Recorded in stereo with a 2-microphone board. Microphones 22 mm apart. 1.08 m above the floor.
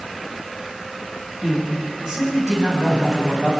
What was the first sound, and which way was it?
A man speaking, 30° right (ahead or behind).